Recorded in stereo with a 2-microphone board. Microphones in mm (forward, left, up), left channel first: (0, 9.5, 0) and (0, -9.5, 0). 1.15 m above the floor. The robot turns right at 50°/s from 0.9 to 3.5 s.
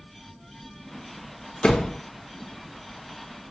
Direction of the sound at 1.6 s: 55° left (ahead or behind).